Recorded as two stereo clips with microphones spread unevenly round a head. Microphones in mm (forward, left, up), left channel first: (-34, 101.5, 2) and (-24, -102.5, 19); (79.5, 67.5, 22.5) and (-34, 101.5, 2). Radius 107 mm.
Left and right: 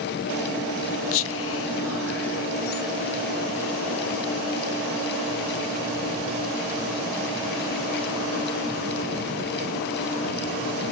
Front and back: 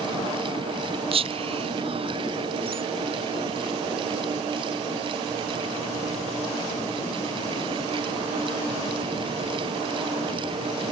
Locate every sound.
1.1 s whispering: 115° left, 0.5 m